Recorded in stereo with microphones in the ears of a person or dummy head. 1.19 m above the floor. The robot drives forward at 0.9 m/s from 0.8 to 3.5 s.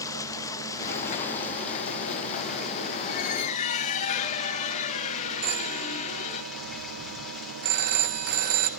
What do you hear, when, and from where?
0.0 s running water: 20° left (ahead or behind), 1.2 m; by 8.8 s 5° left (ahead or behind), 3.5 m
3.1 s a squeak: 55° left (ahead or behind), 1.1 m; by 6.4 s 45° left (ahead or behind), 1.3 m
5.4 s a phone ringing: 55° right (ahead or behind), 1.2 m